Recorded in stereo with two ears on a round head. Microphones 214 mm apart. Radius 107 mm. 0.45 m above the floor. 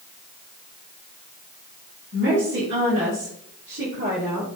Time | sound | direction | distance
2.1 | a woman speaking | 55° right (ahead or behind) | 3.5 m